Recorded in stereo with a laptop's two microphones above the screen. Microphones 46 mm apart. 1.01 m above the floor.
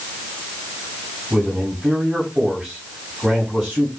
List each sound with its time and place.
1.3 s a man speaking: 20° right (ahead or behind), 8 m